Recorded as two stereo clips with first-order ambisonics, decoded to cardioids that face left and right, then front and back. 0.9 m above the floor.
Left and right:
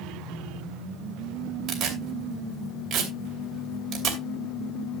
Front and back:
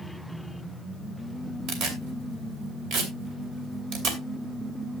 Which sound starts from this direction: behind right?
Tearing paper, at 1.7 s.